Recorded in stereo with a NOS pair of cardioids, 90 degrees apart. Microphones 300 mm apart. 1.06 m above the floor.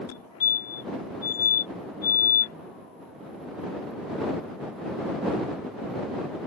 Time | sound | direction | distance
0.1 | a fire alarm | 65° left | ?